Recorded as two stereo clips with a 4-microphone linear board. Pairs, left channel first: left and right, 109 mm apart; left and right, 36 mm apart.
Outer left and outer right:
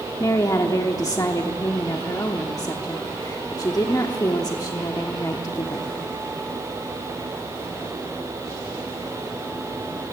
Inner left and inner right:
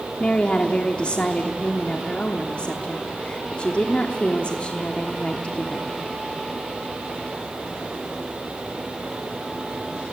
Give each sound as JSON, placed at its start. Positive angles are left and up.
{"t": 0.2, "sound": "a woman speaking", "side_deg": 35, "distance_m": 1.0}